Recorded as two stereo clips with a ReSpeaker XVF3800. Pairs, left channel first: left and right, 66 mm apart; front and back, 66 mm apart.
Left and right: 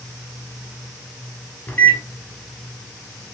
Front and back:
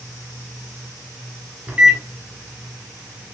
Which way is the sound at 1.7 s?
125° left.